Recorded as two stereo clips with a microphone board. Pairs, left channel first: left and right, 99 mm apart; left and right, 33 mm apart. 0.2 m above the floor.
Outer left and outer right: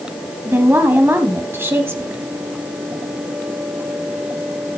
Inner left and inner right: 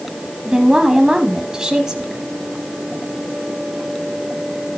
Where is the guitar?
I don't hear a guitar.